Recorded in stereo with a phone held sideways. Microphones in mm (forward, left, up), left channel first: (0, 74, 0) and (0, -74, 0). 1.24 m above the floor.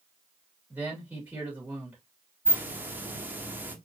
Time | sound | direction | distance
0.7 | a man speaking | 15° right (ahead or behind) | 2.5 m
2.5 | a hiss | 15° right (ahead or behind) | 1.0 m